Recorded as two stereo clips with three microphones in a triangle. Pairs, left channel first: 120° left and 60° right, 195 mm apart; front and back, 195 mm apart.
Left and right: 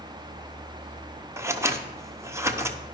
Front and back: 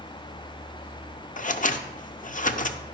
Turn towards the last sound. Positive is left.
turn(degrees=5)